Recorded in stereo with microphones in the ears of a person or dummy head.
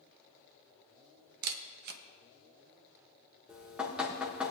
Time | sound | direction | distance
1.4 | a camera shutter | 55° right (ahead or behind) | 0.8 m
3.5 | dripping | centre (ahead or behind) | 1.6 m